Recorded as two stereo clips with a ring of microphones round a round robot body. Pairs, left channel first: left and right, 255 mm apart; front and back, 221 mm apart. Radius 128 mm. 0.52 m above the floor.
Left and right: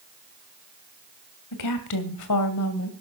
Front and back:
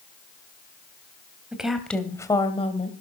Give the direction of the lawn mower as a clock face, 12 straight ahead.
No lawn mower in this recording.